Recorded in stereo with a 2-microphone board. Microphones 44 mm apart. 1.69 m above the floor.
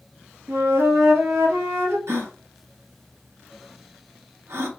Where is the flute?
70° right (ahead or behind), 0.7 m.